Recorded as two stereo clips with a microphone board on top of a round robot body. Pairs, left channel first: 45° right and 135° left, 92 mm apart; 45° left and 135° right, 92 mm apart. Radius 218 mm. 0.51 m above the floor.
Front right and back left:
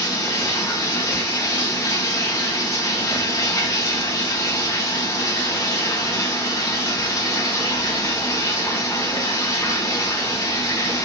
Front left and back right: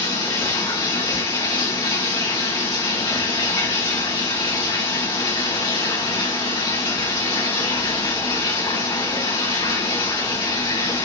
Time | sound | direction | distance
0.0 | running water | 10° left | 3.5 m